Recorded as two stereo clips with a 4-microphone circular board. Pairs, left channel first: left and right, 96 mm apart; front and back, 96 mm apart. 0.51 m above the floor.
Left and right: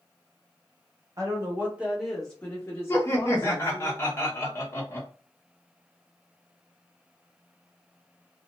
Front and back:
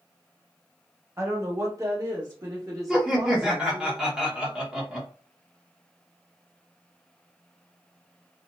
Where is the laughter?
105° left, 1.0 m.